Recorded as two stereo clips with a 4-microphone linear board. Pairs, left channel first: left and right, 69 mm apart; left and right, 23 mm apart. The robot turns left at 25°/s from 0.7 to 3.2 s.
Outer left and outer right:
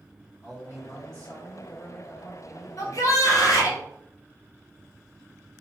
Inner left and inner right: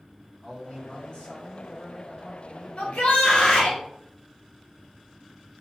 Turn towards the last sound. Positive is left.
turn(degrees=50)  # may be behind; listen again after turning